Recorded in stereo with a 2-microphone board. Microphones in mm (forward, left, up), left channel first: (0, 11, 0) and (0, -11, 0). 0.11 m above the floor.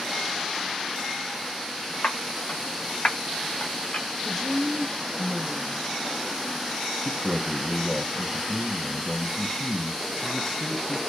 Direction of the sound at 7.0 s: 35° left (ahead or behind).